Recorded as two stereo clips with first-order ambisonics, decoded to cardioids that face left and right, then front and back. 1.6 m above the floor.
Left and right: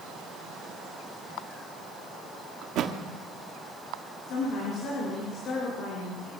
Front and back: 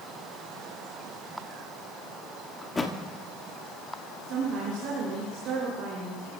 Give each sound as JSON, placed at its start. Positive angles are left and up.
{"t": 2.6, "sound": "a thud", "azimuth_deg": -70, "distance_m": 1.3}
{"t": 4.3, "sound": "a woman speaking", "azimuth_deg": 135, "distance_m": 5.0}